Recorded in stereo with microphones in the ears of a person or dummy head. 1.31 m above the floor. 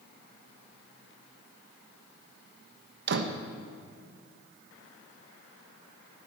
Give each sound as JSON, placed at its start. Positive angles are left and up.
{"t": 3.1, "sound": "a door slam", "side_deg": -60, "distance_m": 1.1}